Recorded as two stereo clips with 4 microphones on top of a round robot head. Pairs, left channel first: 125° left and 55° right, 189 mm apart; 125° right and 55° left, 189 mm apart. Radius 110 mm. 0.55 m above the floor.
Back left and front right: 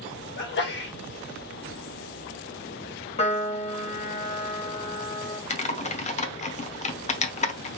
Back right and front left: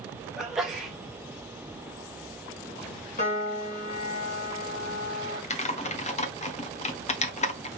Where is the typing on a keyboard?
Straight behind, 1.0 m.